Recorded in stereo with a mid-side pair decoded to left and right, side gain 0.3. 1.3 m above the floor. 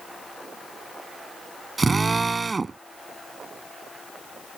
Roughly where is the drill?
Ahead right.